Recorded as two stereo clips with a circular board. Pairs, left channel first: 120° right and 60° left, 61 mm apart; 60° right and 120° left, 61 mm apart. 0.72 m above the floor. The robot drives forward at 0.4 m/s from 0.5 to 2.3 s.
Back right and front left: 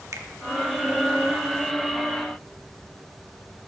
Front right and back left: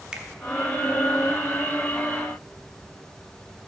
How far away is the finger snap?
About 0.8 m.